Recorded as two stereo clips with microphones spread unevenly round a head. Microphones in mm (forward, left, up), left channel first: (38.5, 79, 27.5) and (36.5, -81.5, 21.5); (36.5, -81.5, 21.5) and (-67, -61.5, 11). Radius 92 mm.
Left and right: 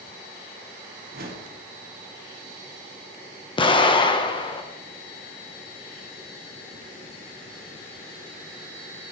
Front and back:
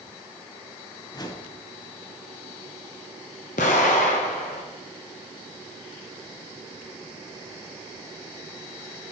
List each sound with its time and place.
1.1 s a whoosh: 65° right, 1.4 m
3.6 s an explosion: 30° left, 1.0 m